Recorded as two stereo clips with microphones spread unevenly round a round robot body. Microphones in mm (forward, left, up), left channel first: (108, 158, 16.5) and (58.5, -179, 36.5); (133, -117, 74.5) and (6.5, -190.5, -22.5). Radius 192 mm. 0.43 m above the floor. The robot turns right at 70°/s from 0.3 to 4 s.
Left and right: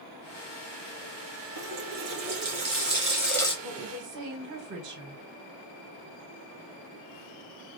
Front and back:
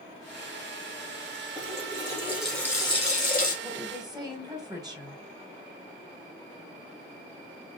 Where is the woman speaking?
160° right, 1.0 m; by 5.2 s 135° right, 1.0 m.